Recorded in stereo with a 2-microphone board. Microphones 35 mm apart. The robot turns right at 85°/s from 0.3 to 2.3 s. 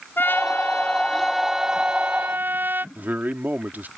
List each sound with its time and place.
0.2 s a trumpet: 85° left; by 2.9 s 105° right
3.0 s a man speaking: 65° right (ahead or behind)